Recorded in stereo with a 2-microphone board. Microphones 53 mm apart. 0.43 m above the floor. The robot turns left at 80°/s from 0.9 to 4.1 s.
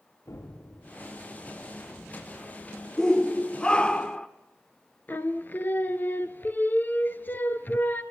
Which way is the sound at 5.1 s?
35° left (ahead or behind).